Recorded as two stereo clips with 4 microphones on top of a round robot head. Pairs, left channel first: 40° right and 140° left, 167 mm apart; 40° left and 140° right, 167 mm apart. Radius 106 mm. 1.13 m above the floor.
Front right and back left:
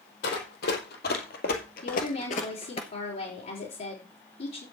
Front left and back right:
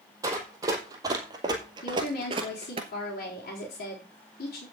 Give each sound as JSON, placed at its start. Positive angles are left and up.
{"t": 0.2, "sound": "running footsteps", "azimuth_deg": -70, "distance_m": 3.0}
{"t": 1.8, "sound": "a woman speaking", "azimuth_deg": 0, "distance_m": 4.0}